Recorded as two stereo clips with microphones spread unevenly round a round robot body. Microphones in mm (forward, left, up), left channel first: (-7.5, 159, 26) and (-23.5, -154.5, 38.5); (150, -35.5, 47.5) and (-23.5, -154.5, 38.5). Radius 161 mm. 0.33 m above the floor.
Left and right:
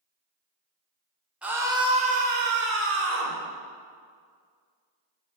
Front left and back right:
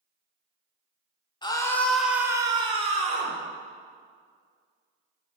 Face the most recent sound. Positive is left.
turn(degrees=-115)